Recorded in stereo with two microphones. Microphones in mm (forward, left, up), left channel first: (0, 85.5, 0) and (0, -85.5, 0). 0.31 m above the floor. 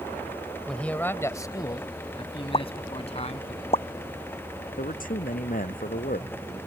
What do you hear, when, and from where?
0.7 s a man speaking: 5° left (ahead or behind); by 3.5 s 40° left (ahead or behind)
2.5 s a pop: 35° left (ahead or behind)
4.8 s a man speaking: 55° left (ahead or behind)